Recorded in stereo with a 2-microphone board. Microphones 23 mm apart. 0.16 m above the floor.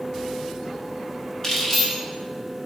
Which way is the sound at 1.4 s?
15° left (ahead or behind).